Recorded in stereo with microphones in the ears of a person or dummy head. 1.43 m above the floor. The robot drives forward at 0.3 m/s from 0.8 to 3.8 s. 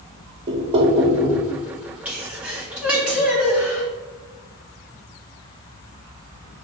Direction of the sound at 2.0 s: 10° right (ahead or behind).